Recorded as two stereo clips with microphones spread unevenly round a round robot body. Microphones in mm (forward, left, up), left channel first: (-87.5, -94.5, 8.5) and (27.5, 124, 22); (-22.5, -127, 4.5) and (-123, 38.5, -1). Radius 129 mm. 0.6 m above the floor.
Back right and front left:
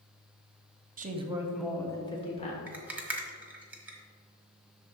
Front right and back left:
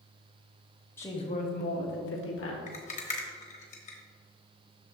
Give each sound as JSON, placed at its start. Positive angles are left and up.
{"t": 1.0, "sound": "a woman speaking", "azimuth_deg": 20, "distance_m": 0.8}
{"t": 2.7, "sound": "a rattle", "azimuth_deg": -25, "distance_m": 1.1}